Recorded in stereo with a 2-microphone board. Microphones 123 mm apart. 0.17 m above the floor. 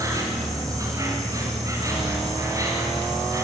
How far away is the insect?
About 5 m.